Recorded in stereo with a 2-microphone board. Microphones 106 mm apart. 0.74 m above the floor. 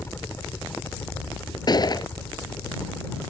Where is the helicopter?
20° left (ahead or behind).